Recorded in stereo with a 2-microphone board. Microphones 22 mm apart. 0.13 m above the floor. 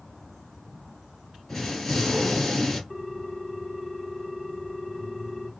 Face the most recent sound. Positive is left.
turn(degrees=15)  # may be behind; listen again after turning